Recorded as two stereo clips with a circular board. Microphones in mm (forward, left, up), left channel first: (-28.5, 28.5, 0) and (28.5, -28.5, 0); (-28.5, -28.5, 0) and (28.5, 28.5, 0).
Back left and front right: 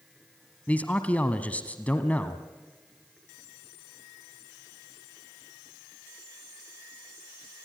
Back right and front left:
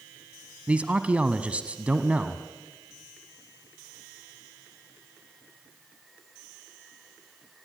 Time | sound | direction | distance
0.7 | a man speaking | 95° left | 1.0 m